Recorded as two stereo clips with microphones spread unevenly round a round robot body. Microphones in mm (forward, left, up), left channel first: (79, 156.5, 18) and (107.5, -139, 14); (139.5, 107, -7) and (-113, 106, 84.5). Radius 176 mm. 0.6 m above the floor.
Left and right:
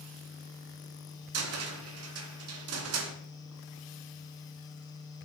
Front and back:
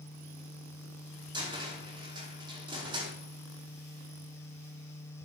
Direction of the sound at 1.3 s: 90° right.